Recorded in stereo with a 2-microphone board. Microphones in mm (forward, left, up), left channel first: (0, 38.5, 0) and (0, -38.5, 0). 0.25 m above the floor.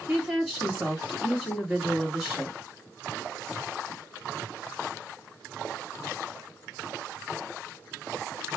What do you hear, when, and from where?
0.1 s a woman speaking: 5° right (ahead or behind), 2.0 m